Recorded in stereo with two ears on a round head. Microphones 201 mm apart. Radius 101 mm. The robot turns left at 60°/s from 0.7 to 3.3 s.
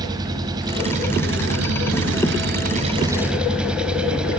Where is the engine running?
20° right, 3 m; by 4.4 s 175° right, 3 m.